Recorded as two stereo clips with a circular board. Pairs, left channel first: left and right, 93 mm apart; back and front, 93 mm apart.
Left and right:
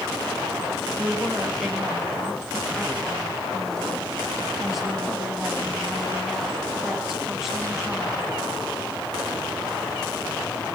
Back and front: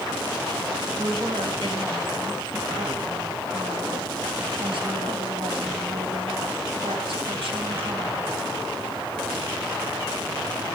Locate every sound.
1.0 s a woman speaking: 5° right, 3.5 m